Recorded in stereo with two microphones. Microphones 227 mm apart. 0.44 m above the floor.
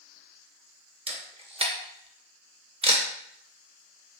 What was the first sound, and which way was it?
A camera shutter, 25° right (ahead or behind).